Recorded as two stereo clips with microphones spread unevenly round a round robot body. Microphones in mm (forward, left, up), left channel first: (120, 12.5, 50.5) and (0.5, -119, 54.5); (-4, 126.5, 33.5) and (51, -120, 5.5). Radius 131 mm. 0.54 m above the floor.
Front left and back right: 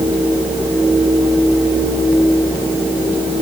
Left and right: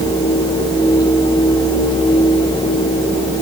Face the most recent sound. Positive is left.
No sound to turn to.